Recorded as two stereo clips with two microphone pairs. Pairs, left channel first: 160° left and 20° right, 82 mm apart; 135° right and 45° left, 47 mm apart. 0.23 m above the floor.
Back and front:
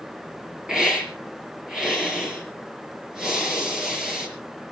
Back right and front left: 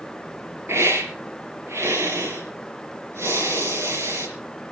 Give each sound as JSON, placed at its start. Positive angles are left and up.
{"t": 0.7, "sound": "a hiss", "azimuth_deg": 60, "distance_m": 5.0}